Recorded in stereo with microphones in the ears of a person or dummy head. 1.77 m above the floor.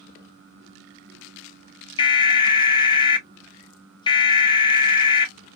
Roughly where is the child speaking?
I don't hear a child speaking.